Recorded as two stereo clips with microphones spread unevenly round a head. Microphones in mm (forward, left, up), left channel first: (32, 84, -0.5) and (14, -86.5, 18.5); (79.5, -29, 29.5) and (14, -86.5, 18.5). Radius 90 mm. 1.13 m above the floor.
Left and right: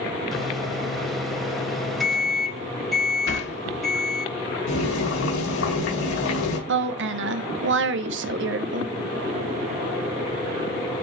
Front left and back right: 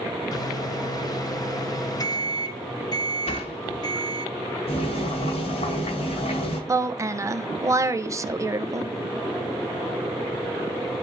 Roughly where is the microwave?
Ahead.